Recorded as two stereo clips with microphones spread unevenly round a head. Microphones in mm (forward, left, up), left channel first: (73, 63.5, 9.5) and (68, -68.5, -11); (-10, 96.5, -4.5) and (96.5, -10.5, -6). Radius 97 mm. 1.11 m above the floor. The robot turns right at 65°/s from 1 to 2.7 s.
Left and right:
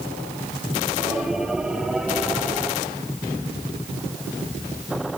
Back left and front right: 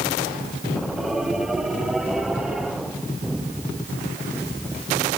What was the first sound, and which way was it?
Only background noise.